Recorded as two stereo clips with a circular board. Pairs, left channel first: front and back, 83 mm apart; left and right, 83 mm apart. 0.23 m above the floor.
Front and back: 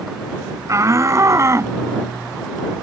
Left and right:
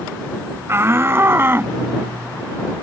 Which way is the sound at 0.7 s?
140° right.